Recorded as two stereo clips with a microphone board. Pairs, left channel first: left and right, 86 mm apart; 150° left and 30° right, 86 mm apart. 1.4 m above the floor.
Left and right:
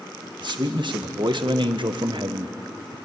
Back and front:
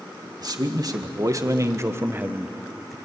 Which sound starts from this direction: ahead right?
A man speaking, at 0.4 s.